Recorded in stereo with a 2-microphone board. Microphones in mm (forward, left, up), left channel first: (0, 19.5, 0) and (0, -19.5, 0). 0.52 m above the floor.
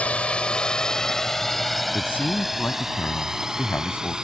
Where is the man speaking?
65° left (ahead or behind).